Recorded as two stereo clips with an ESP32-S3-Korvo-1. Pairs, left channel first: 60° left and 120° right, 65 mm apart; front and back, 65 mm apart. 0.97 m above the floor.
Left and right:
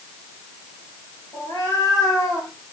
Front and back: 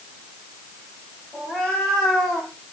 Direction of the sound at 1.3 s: 90° left.